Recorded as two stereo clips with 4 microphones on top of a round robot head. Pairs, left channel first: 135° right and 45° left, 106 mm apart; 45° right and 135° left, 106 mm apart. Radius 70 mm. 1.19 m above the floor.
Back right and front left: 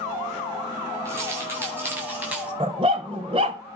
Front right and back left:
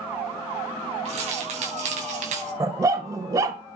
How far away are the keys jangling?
About 7 m.